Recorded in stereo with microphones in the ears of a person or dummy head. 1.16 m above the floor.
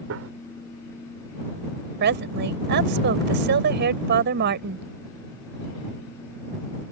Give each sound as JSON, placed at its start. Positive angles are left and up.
{"t": 0.1, "sound": "a gunshot", "side_deg": -65}
{"t": 2.0, "sound": "a woman speaking", "side_deg": -60}